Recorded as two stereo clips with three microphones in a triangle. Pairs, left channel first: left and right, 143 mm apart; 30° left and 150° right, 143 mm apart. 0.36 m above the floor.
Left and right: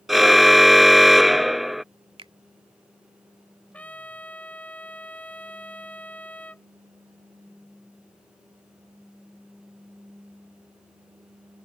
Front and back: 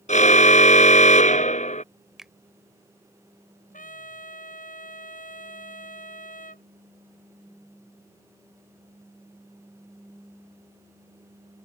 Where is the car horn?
Straight ahead.